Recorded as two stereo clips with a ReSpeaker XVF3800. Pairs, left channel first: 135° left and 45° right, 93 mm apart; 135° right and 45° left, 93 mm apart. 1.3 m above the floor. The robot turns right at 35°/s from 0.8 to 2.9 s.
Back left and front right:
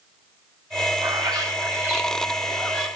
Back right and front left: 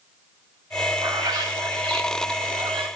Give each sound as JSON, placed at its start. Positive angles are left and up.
{"t": 1.0, "sound": "a bird", "azimuth_deg": -10, "distance_m": 3.5}